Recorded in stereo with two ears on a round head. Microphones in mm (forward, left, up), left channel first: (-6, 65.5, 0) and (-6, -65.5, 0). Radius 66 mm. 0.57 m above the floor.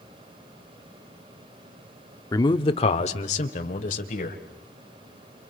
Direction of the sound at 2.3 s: 25° left (ahead or behind).